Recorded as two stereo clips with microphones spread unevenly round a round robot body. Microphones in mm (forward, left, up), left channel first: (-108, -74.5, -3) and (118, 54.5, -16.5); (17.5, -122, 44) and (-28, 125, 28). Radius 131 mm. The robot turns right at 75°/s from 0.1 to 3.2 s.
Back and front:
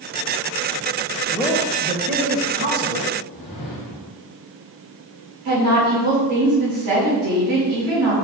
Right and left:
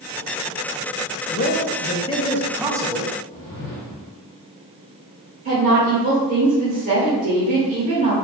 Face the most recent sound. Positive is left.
turn(degrees=45)